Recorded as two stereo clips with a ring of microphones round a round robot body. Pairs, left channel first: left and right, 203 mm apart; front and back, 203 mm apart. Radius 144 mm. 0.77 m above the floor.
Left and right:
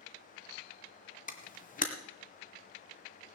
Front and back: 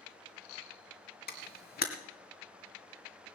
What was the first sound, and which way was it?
A camera shutter, 40° left.